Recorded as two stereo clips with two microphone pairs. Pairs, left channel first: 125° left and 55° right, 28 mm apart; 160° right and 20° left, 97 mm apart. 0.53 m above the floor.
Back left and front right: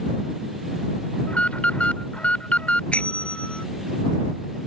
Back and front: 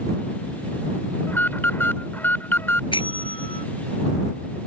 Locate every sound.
1.3 s an alarm: 135° left
2.9 s a bell: 170° left